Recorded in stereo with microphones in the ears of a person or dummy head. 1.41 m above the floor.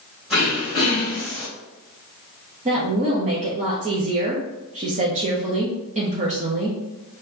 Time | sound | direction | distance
0.3 | throat clearing | 10° right (ahead or behind) | 1.7 m
2.6 | a woman speaking | 40° right (ahead or behind) | 0.6 m